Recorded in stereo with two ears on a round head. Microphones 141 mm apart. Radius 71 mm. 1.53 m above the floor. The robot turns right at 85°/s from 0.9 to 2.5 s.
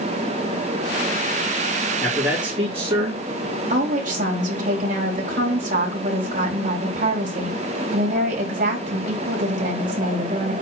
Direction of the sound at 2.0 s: 175° left.